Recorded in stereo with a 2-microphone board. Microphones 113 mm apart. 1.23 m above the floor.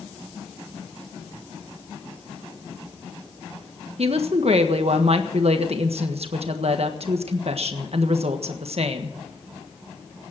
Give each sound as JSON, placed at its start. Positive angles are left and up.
{"t": 4.0, "sound": "a woman speaking", "side_deg": -65, "distance_m": 1.4}